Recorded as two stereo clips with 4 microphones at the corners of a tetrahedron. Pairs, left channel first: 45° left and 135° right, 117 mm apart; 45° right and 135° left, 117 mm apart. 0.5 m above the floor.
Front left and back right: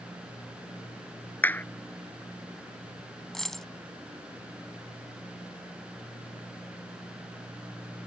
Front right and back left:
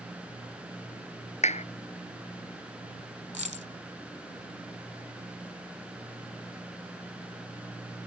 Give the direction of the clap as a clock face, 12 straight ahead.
1 o'clock.